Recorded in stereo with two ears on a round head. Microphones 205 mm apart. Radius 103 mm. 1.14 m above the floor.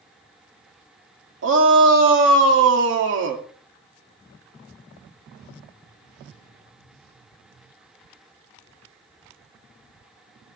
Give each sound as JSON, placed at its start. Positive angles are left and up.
{"t": 1.4, "sound": "a shout", "side_deg": -60, "distance_m": 2.5}